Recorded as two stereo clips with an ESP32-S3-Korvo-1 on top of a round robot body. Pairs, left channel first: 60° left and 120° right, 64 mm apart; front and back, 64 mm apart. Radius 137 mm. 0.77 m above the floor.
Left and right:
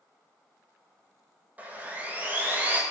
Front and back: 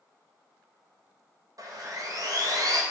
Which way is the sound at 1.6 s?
175° left.